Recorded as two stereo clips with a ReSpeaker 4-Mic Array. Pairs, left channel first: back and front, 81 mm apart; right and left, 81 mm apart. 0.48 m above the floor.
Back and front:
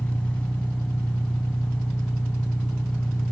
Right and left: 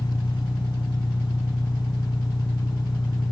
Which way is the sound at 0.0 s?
105° right.